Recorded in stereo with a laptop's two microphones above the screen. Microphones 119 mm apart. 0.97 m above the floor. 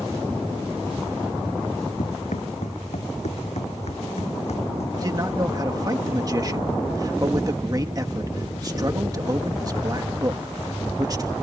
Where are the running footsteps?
80° left; by 4.9 s 65° left (ahead or behind).